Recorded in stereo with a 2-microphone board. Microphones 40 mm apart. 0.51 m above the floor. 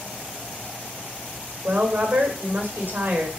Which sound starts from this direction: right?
A woman speaking, at 1.6 s.